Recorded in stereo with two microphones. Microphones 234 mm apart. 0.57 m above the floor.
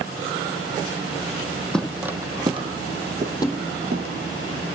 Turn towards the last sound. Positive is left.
turn(degrees=15)  # may be behind; listen again after turning